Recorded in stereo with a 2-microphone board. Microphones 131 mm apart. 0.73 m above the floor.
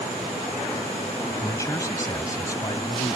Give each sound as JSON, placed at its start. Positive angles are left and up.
{"t": 1.4, "sound": "a man speaking", "side_deg": 25}